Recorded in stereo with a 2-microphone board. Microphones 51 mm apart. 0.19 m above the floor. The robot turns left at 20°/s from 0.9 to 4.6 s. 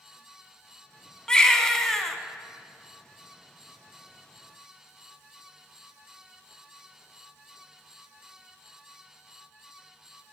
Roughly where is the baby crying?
Centre.